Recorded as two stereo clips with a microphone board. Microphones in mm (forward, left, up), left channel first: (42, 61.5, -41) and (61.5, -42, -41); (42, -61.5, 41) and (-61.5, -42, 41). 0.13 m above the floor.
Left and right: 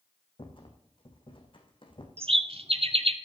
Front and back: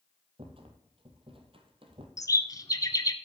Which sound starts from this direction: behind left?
A rattle, at 0.4 s.